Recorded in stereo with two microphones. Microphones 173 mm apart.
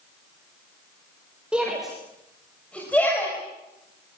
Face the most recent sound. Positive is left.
turn(degrees=10)  # may be behind; listen again after turning